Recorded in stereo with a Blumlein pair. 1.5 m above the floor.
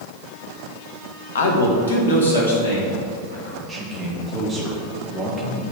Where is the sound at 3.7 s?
10° right, 1.8 m.